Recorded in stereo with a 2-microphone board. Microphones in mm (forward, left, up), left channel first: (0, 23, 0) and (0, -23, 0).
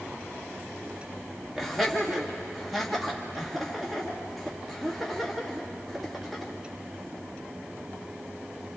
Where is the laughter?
Centre (ahead or behind), 2.5 m.